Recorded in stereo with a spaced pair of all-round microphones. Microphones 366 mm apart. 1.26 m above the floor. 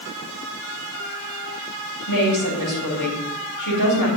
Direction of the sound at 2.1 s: 65° left (ahead or behind).